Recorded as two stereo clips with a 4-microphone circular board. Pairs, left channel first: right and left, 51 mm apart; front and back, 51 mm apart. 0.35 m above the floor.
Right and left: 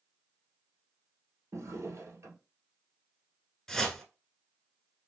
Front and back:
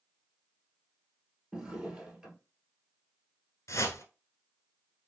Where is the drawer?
105° left, 1.5 m.